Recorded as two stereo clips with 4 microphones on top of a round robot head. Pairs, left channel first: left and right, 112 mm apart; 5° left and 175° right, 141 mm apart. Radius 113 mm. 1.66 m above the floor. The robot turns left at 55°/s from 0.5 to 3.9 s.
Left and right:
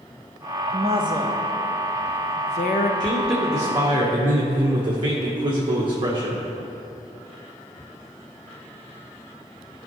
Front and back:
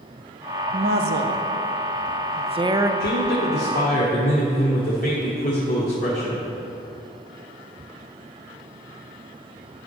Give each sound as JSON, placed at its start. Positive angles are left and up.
{"t": 0.7, "sound": "a woman speaking", "azimuth_deg": -135, "distance_m": 0.5}
{"t": 3.0, "sound": "a man speaking", "azimuth_deg": 10, "distance_m": 1.2}